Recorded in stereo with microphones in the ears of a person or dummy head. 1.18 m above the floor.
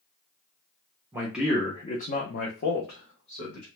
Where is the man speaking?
20° right (ahead or behind), 0.5 m; by 3.7 s 70° left (ahead or behind), 1.2 m.